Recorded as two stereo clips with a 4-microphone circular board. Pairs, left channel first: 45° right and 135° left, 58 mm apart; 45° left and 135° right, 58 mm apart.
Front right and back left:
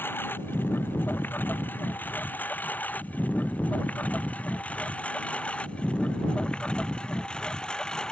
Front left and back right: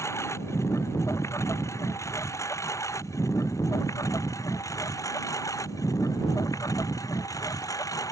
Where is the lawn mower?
10° left; by 8.1 s 35° left.